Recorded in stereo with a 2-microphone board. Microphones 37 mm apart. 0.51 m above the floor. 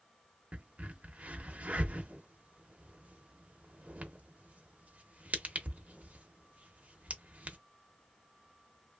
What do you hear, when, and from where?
0.5 s a crack: 35° right (ahead or behind), 0.6 m